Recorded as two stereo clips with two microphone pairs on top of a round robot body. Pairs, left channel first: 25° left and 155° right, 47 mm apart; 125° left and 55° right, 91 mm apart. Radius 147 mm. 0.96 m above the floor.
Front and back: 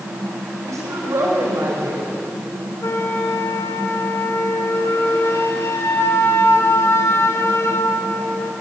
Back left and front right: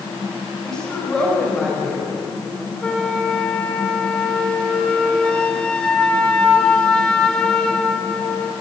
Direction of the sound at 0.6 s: 150° right.